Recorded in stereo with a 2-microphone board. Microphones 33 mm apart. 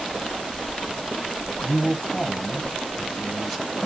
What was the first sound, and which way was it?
A man speaking, 5° right (ahead or behind).